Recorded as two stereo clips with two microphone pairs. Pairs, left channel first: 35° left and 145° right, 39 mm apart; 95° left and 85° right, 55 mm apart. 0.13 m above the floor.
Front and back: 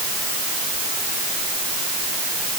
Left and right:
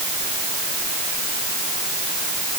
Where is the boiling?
I don't hear boiling.